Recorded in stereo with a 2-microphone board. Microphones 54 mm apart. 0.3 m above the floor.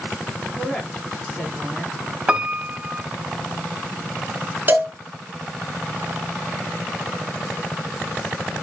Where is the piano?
15° right (ahead or behind), 0.9 m.